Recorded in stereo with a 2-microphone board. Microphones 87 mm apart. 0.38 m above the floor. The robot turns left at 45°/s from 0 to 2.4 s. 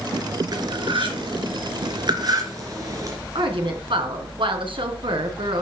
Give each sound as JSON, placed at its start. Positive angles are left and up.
{"t": 0.5, "sound": "cutlery clinking", "side_deg": -50, "distance_m": 3.5}
{"t": 3.4, "sound": "a woman speaking", "side_deg": -75, "distance_m": 4.0}